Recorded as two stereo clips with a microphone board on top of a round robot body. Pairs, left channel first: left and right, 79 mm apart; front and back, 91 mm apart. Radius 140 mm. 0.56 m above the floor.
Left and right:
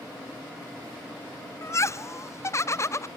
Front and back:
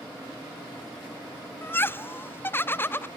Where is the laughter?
55° left, 0.8 m.